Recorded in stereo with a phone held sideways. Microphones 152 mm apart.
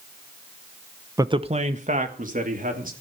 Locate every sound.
1.2 s a man speaking: 20° right (ahead or behind), 0.7 m; by 2.9 s 70° right (ahead or behind), 3 m